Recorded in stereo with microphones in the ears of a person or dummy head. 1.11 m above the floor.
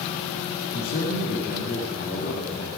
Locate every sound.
0.7 s a man speaking: 50° left (ahead or behind), 1.8 m